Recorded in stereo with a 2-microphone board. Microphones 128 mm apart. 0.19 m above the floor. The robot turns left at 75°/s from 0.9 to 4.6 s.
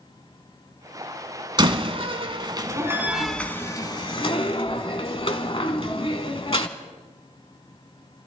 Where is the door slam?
40° right (ahead or behind), 1.1 m; by 6.7 s 45° left (ahead or behind), 1.1 m.